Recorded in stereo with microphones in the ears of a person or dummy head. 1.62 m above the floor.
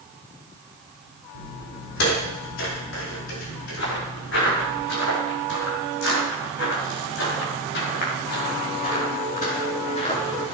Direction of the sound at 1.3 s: 65° left (ahead or behind).